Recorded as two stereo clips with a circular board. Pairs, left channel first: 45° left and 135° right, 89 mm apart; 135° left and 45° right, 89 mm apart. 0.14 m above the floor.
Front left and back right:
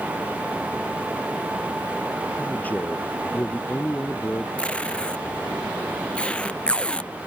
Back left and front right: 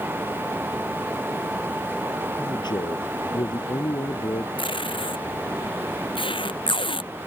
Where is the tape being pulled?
120° left.